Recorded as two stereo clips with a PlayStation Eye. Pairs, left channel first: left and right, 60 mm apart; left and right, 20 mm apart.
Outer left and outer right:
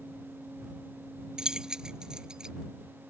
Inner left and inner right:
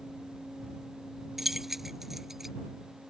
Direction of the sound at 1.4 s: 10° right (ahead or behind).